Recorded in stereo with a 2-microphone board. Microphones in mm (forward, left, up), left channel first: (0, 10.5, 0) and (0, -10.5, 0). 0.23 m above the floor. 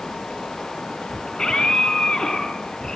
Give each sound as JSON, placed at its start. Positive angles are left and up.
{"t": 1.3, "sound": "a scream", "side_deg": 45, "distance_m": 6.0}